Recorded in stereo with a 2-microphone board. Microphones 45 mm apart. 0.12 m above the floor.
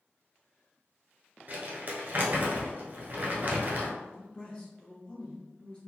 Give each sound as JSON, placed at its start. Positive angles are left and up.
{"t": 1.5, "sound": "crumpling", "side_deg": -40, "distance_m": 0.8}
{"t": 4.0, "sound": "a man speaking", "side_deg": 20, "distance_m": 1.2}